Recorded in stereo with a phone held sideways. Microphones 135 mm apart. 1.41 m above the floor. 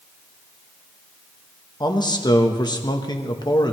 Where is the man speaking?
30° left (ahead or behind), 1.2 m.